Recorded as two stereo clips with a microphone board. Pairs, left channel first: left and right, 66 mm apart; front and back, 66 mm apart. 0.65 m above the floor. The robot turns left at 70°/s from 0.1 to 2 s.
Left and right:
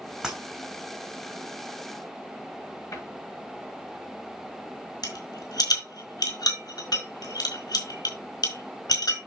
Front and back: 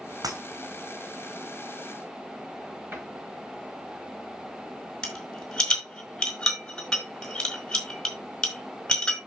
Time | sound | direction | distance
0.2 | breaking glass | 170° right | 2.5 m
2.9 | a cupboard door | 125° left | 6.5 m
5.0 | a rattle | 80° left | 4.5 m